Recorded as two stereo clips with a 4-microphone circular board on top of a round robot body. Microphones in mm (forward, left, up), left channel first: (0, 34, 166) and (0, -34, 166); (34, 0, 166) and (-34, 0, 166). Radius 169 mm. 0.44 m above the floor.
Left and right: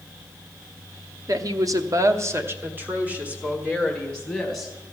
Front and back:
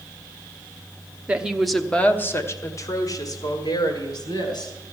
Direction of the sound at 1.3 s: 110° right.